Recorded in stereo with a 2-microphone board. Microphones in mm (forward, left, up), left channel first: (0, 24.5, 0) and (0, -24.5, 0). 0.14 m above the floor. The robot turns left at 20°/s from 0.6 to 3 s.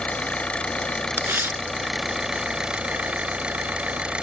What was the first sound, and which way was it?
An engine running, 25° left.